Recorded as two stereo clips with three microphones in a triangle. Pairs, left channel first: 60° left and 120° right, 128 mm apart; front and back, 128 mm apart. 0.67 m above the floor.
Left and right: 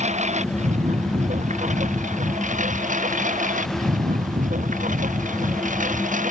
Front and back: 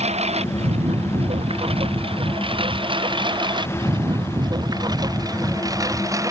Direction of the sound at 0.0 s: 145° right.